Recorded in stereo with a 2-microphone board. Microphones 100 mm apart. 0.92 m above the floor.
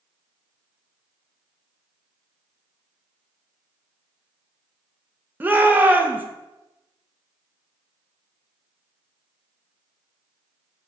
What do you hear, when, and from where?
5.4 s a shout: 15° right (ahead or behind), 0.9 m